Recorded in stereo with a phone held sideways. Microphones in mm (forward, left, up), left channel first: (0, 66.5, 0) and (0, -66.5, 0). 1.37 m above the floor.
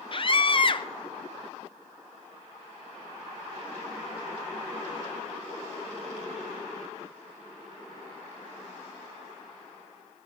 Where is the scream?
40° left (ahead or behind), 0.7 m.